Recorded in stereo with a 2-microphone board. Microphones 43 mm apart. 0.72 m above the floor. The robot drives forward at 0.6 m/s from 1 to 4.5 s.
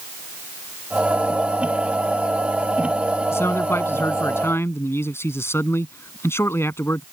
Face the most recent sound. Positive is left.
turn(degrees=85)